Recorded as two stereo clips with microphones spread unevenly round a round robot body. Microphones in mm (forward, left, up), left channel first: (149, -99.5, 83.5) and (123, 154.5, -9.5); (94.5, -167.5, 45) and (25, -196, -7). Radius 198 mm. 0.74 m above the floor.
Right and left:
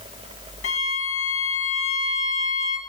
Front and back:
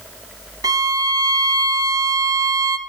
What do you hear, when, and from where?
0.6 s a violin: 90° right, 0.6 m